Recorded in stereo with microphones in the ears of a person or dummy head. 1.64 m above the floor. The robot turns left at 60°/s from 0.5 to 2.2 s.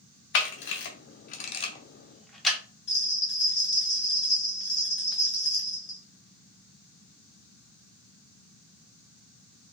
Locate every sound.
0.3 s a camera shutter: 60° left (ahead or behind), 0.9 m; by 2.6 s 5° left (ahead or behind), 0.9 m
2.9 s a bell: 60° left (ahead or behind), 0.6 m